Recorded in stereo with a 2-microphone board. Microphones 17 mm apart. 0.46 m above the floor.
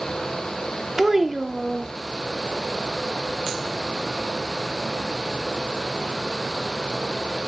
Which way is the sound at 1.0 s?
25° right (ahead or behind).